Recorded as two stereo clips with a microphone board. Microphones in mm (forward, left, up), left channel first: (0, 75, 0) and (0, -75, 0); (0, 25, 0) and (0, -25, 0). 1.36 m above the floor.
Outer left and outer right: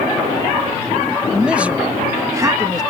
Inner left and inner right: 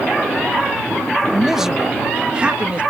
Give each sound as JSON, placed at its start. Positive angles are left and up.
{"t": 1.3, "sound": "a man speaking", "side_deg": -5}